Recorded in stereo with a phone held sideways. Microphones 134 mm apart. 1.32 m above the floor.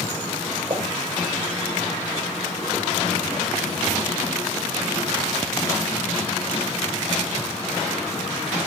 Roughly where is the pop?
Right.